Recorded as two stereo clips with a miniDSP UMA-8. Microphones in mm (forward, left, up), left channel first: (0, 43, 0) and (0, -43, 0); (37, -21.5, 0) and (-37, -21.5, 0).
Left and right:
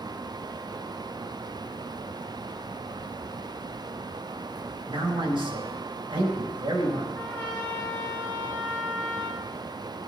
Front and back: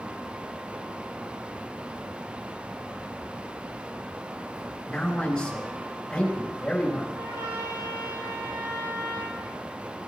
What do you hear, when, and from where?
4.8 s a man speaking: 80° right, 4 m
7.2 s a trumpet: 160° left, 5 m